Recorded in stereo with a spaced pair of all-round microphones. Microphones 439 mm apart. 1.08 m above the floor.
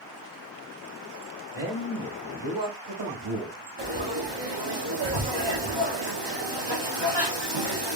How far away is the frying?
About 1.3 m.